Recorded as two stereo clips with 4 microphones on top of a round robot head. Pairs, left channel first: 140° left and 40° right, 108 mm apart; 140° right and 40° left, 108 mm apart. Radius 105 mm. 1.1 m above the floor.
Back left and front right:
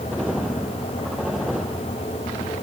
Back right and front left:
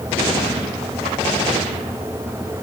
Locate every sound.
Only background noise.